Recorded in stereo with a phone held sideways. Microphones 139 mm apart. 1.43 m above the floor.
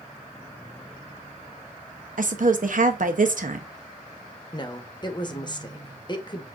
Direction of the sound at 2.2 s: 70° right (ahead or behind).